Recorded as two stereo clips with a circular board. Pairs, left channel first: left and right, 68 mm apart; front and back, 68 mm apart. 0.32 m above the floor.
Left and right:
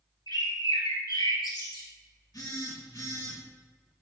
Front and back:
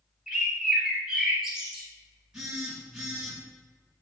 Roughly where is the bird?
Left.